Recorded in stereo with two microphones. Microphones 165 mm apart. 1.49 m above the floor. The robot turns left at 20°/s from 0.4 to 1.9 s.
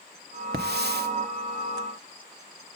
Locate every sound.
0.5 s a hiss: 85° right, 0.9 m; by 1.1 s 80° right, 0.9 m